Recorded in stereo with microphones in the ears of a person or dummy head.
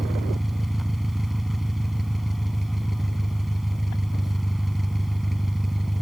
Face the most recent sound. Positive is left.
turn(degrees=0)  # may be behind; listen again after turning